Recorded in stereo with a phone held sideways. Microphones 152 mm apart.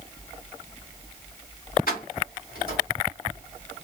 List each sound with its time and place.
1.9 s keys jangling: 80° left, 1.7 m